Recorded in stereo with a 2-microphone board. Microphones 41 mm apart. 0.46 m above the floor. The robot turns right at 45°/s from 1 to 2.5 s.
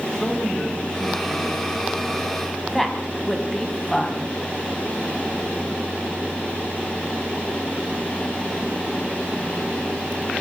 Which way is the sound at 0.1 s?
160° left.